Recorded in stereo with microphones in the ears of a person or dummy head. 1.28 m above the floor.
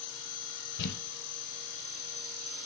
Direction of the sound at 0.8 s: 65° left (ahead or behind).